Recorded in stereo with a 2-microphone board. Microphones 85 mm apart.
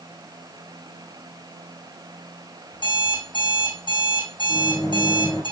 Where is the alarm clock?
75° left (ahead or behind), 4 m.